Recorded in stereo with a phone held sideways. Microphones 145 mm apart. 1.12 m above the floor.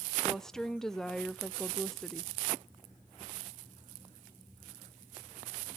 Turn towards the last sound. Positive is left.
turn(degrees=5)  # may be behind; listen again after turning